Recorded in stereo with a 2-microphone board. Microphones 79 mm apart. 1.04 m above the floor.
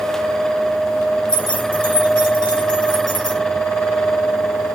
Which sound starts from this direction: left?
Keys jangling, at 1.3 s.